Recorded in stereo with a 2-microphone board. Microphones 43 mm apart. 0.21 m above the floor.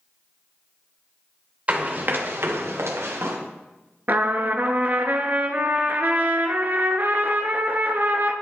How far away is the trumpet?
About 0.8 m.